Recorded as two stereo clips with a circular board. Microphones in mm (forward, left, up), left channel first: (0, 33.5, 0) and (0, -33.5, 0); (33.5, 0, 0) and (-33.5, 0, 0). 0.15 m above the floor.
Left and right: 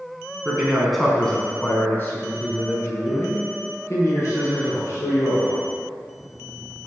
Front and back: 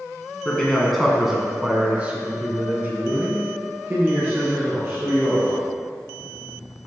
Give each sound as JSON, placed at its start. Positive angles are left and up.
{"t": 0.5, "sound": "a man speaking", "azimuth_deg": -40, "distance_m": 1.3}